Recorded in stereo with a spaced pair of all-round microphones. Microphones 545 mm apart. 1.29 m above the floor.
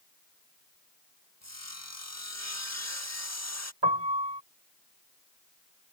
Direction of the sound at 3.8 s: 50° right (ahead or behind).